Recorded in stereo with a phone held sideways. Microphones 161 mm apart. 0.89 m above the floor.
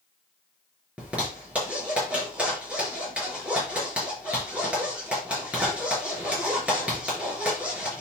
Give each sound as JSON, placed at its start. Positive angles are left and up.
{"t": 1.0, "sound": "a zipper", "side_deg": -10, "distance_m": 5.0}